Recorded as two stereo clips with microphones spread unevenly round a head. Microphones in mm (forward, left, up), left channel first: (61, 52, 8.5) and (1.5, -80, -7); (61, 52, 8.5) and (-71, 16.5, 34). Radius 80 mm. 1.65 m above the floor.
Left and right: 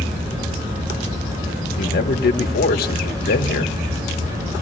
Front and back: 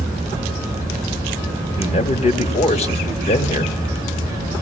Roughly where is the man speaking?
Ahead left.